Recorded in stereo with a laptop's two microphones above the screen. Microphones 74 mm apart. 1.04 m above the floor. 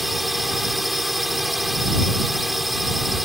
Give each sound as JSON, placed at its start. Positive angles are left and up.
{"t": 0.0, "sound": "a drone", "side_deg": 0}